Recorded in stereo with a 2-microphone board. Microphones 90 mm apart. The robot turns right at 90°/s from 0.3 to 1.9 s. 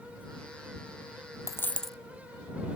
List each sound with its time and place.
1.5 s a dropped coin: 140° left; by 2.0 s straight behind